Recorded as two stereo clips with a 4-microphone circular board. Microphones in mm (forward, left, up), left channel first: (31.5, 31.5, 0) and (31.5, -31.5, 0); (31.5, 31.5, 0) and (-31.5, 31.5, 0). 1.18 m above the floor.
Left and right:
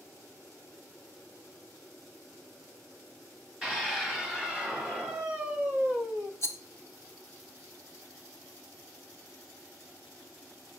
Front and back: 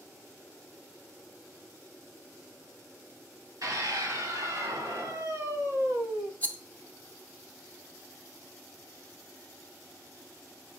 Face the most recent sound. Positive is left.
turn(degrees=60)